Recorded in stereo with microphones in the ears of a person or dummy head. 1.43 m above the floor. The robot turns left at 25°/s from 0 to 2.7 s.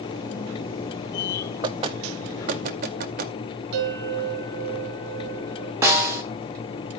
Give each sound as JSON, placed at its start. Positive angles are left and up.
{"t": 1.6, "sound": "knocking", "side_deg": -25, "distance_m": 0.9}
{"t": 3.7, "sound": "a bell", "side_deg": -50, "distance_m": 3.0}
{"t": 5.8, "sound": "a snare drum", "side_deg": -15, "distance_m": 2.5}